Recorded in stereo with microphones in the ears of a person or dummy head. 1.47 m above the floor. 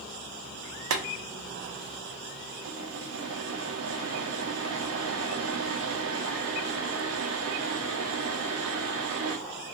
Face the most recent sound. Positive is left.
turn(degrees=-65)  # may be behind; listen again after turning